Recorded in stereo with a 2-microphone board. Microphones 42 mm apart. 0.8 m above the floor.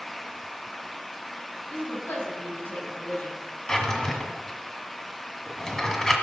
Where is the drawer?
10° left (ahead or behind), 1.7 m.